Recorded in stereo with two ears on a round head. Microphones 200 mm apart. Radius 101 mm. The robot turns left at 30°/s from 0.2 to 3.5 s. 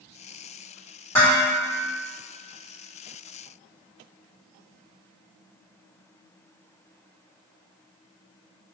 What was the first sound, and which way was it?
Dishes clattering, 10° left (ahead or behind).